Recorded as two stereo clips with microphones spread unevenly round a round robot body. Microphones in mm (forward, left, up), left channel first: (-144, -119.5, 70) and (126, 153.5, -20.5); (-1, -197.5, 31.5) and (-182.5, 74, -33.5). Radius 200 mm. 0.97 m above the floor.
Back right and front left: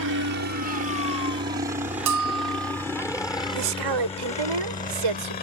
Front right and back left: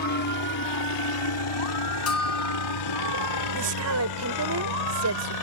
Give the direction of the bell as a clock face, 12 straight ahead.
12 o'clock.